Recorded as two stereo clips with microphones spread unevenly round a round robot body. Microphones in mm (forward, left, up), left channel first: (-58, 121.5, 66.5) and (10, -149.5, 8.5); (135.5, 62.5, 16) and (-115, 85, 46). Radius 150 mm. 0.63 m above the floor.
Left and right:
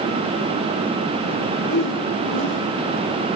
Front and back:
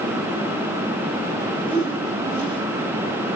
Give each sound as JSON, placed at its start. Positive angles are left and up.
{"t": 1.6, "sound": "a whoosh", "azimuth_deg": 110, "distance_m": 5.5}